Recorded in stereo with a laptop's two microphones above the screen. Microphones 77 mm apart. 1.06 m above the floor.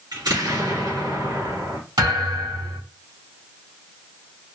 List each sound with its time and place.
0.1 s an explosion: 65° right (ahead or behind), 2.5 m
2.0 s a thud: 65° right (ahead or behind), 2.5 m